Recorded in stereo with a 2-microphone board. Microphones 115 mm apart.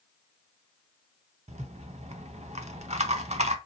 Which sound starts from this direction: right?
A rattle, at 1.5 s.